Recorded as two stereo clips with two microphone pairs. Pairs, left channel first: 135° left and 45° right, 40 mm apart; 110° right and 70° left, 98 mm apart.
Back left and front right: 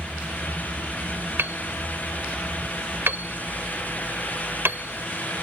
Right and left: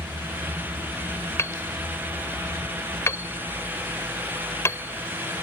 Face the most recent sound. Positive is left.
turn(degrees=-45)